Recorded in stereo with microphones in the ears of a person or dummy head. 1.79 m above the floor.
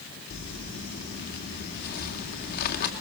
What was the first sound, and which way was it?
Crumpling, 50° left (ahead or behind).